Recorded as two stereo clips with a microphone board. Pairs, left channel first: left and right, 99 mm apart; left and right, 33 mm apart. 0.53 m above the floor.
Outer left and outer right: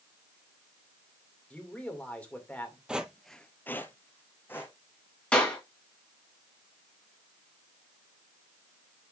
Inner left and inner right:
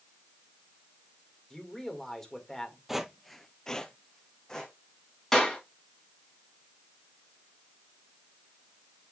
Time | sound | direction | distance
1.5 | a man speaking | 10° left (ahead or behind) | 2 m
2.9 | footsteps | 10° right (ahead or behind) | 0.8 m
5.3 | a clap | 10° left (ahead or behind) | 3.5 m